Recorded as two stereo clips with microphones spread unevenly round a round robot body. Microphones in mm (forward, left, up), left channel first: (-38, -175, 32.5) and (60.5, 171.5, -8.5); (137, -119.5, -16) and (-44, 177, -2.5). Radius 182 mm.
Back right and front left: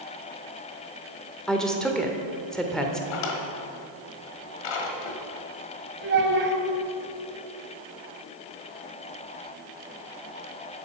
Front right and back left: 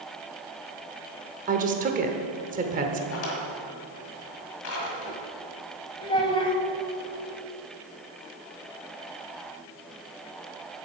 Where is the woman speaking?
155° left, 1.1 m.